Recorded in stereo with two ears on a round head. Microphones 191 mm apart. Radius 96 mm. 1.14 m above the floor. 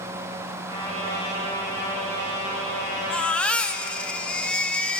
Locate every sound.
0.7 s a trumpet: 80° right, 8.5 m
3.1 s a baby crying: 5° left (ahead or behind), 1.3 m